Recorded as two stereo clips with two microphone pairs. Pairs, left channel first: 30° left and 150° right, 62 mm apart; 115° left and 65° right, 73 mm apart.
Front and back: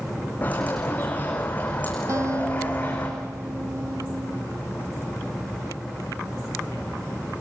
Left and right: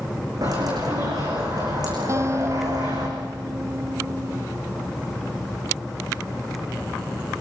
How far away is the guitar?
About 1.0 m.